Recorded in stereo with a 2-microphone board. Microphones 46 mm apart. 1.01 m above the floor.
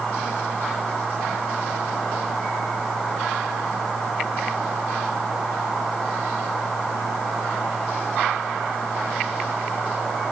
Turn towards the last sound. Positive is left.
No sound to turn to.